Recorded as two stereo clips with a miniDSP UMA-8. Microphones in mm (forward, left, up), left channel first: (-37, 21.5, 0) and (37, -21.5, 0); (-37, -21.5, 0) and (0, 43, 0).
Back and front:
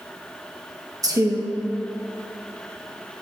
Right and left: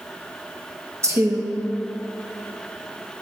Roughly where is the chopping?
I don't hear chopping.